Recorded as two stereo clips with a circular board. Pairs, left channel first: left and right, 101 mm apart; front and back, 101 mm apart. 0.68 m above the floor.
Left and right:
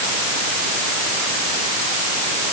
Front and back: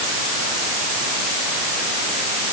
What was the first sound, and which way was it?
Only background noise.